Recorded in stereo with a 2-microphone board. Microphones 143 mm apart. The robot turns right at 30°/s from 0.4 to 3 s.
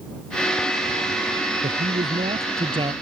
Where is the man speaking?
70° right; by 2.9 s 35° right.